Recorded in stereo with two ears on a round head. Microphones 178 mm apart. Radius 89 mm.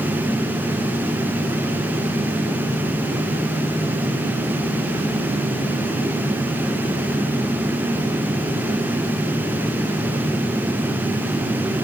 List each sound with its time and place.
Only background noise.